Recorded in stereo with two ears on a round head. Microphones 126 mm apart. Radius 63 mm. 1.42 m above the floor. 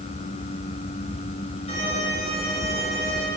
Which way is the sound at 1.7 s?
40° left (ahead or behind).